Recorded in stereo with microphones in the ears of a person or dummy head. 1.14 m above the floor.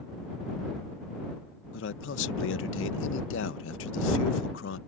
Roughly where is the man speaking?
Left.